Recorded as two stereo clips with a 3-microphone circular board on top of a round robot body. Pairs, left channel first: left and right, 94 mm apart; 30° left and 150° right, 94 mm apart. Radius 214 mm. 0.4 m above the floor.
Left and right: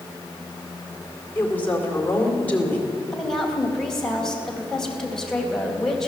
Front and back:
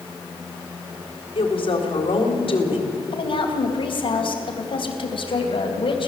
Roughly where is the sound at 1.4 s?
Ahead.